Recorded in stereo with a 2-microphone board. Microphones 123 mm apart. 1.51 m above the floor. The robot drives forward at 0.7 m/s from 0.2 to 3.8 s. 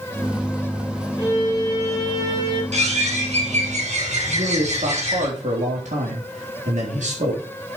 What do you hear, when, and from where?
1.2 s a violin: 25° right (ahead or behind), 7 m; by 2.6 s 30° right (ahead or behind), 6 m
2.7 s a bird: 65° right (ahead or behind), 6.5 m; by 5.3 s 70° right (ahead or behind), 6 m
4.3 s a man speaking: 85° right, 4 m